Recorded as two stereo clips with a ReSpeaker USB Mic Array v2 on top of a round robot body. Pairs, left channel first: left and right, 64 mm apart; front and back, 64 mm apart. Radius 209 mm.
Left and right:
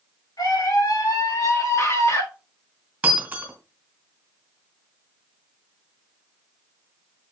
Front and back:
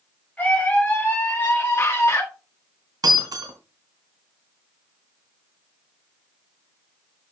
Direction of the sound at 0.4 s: 70° left.